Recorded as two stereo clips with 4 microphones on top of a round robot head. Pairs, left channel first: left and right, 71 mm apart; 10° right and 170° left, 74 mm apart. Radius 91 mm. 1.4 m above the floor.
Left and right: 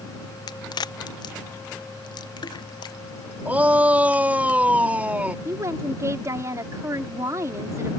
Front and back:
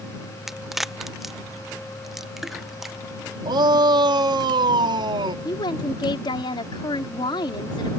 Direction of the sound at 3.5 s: 160° right.